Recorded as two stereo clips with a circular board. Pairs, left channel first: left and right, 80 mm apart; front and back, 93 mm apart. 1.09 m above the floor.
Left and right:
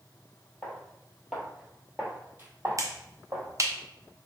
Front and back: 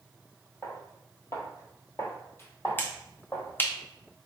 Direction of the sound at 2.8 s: 60° right.